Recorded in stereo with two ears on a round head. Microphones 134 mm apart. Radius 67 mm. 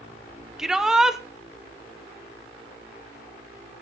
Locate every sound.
0.6 s a shout: 5° right (ahead or behind), 0.9 m